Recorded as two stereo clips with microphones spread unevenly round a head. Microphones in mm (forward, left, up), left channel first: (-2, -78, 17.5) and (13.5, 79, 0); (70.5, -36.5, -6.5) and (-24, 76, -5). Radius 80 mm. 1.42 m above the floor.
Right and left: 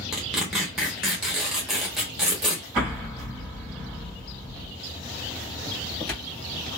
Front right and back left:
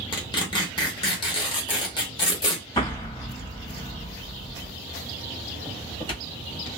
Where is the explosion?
Straight ahead, 1.3 m.